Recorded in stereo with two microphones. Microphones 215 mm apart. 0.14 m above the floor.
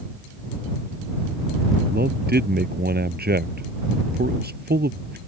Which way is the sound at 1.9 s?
50° right (ahead or behind).